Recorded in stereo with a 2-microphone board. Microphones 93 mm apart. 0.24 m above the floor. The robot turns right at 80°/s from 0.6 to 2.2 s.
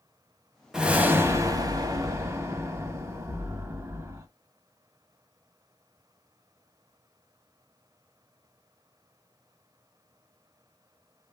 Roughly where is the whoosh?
Behind.